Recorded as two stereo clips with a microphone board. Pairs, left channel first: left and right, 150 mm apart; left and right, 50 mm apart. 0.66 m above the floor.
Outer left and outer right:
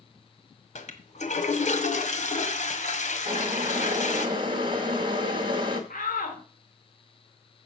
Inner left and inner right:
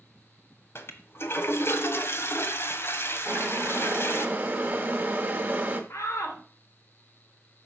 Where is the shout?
65° left (ahead or behind), 2.5 m.